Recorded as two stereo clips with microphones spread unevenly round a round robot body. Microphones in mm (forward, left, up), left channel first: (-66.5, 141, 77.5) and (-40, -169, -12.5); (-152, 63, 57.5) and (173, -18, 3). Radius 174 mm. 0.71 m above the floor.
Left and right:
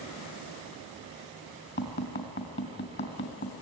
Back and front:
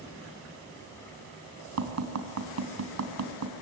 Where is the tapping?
35° left, 3 m.